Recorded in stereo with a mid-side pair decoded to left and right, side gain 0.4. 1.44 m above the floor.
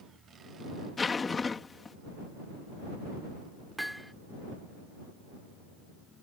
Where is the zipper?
35° left.